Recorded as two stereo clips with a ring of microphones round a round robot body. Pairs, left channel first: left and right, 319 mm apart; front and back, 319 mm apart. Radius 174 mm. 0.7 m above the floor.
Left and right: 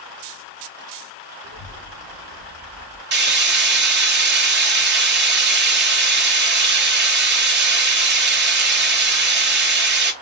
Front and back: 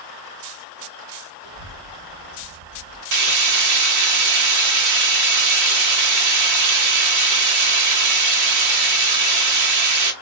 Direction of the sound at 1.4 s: 145° left.